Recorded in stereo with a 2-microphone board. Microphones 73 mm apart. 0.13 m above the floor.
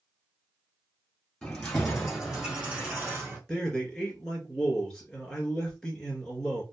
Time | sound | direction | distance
1.4 | keys jangling | 5° left (ahead or behind) | 1.8 m
3.5 | a man speaking | 5° left (ahead or behind) | 2.0 m